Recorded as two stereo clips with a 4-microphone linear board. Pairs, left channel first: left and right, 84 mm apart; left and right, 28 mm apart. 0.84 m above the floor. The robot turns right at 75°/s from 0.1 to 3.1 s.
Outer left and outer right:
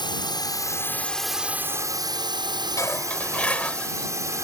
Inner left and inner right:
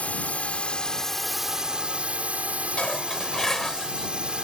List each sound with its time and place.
0.0 s a drone: 90° left; by 4.5 s 45° right
2.8 s dishes clattering: 40° left (ahead or behind); by 4.1 s 15° left (ahead or behind)